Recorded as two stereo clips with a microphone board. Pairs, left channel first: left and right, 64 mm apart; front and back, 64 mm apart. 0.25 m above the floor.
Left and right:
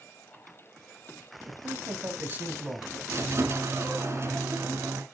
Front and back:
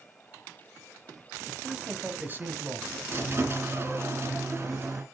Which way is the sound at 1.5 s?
85° right.